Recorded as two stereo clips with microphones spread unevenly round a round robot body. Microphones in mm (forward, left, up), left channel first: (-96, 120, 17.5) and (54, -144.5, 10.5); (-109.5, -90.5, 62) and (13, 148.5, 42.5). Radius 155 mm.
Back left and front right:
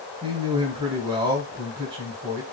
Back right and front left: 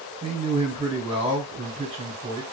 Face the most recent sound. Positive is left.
turn(degrees=5)